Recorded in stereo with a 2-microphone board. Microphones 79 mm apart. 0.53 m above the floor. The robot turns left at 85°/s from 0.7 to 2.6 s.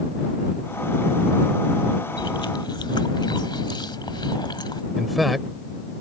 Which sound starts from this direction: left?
Chewing, at 2.2 s.